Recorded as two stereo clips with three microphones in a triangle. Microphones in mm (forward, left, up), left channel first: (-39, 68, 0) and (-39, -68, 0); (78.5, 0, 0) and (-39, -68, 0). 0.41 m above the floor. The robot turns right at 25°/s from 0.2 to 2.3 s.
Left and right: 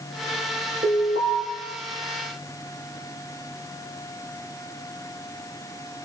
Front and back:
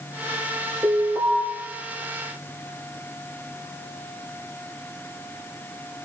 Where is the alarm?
75° right, 7.5 m; by 1.4 s 60° right, 7.5 m.